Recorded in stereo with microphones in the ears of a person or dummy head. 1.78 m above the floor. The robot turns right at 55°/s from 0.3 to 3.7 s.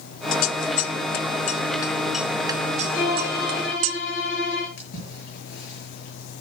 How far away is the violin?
About 4 m.